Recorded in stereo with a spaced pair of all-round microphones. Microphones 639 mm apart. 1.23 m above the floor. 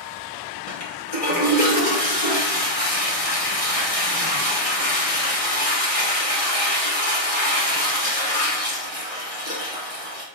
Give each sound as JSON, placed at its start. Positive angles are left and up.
{"t": 0.7, "sound": "a toilet flushing", "side_deg": 60, "distance_m": 1.2}